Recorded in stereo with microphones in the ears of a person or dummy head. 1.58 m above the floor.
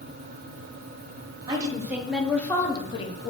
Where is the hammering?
No hammering in this recording.